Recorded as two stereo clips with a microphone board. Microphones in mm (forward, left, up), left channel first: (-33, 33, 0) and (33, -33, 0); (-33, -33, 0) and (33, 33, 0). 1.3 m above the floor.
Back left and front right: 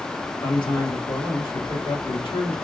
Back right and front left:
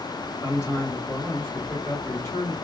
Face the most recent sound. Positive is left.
turn(degrees=165)